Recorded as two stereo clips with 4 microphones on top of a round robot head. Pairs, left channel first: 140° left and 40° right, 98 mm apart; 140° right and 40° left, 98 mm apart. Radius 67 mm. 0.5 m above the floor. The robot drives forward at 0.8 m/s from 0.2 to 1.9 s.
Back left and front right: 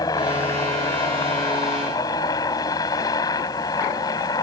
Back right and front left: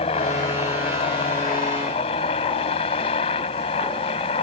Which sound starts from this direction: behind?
A helicopter, at 0.0 s.